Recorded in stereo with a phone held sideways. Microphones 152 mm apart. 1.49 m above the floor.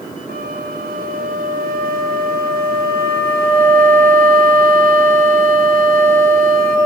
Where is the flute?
75° right (ahead or behind), 3.5 m.